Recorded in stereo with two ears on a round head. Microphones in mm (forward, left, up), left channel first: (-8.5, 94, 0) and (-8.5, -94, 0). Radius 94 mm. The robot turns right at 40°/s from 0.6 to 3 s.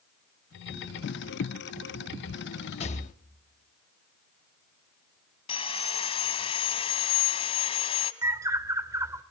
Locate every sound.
2.8 s a rattle: 30° left (ahead or behind), 1.1 m; by 3.1 s 35° left (ahead or behind), 1.1 m
5.5 s sawing: 30° left (ahead or behind), 1.5 m
8.2 s a bird: 15° right (ahead or behind), 1.2 m